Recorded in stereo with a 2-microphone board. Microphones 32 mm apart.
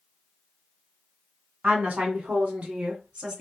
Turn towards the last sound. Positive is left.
turn(degrees=-35)  # may be behind; listen again after turning